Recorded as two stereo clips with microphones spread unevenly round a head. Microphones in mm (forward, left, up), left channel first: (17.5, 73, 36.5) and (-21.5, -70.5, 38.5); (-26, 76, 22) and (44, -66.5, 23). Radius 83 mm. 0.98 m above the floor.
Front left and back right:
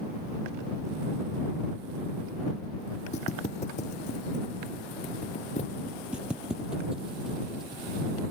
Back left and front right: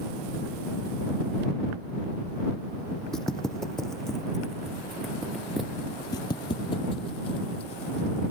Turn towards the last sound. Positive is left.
turn(degrees=170)